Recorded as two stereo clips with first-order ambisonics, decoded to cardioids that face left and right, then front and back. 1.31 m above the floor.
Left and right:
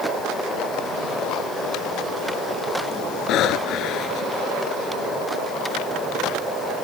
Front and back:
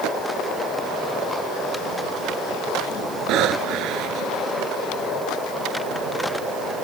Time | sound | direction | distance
3.3 | breathing | 135° left | ?